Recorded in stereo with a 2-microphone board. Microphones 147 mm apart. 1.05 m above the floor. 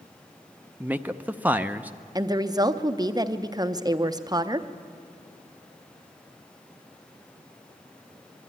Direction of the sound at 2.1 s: 25° right (ahead or behind).